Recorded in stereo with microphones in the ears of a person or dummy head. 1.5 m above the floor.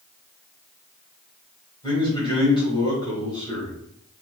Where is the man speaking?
25° left (ahead or behind), 1.8 m.